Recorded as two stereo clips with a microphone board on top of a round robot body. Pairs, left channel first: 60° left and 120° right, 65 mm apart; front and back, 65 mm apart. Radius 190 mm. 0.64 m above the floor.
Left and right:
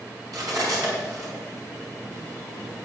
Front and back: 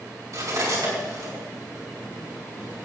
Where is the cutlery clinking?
140° right, 5.5 m.